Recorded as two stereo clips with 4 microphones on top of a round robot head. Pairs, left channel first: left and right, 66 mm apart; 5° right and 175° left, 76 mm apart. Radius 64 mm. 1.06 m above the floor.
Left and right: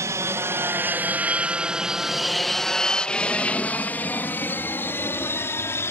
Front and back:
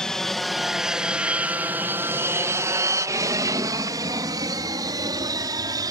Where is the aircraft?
85° right; by 5.9 s 140° left.